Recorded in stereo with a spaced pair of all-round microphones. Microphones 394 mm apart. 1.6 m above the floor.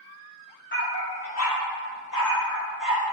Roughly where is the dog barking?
Left.